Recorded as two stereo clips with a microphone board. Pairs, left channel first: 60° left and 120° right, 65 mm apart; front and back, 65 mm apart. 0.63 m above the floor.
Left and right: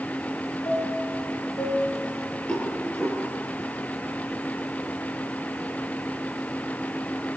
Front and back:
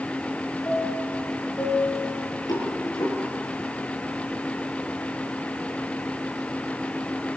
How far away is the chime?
About 9.5 m.